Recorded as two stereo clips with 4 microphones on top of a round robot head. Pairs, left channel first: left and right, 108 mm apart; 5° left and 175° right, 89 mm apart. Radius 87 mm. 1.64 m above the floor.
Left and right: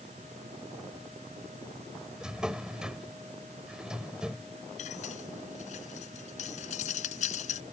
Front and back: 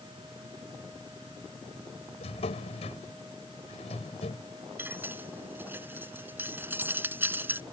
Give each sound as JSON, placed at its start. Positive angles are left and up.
{"t": 2.2, "sound": "a drawer", "azimuth_deg": -5}
{"t": 4.8, "sound": "cutlery clinking", "azimuth_deg": 120}